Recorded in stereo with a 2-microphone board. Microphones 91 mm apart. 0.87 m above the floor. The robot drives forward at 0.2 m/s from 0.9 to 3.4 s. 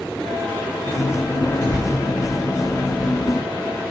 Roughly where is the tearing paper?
Left.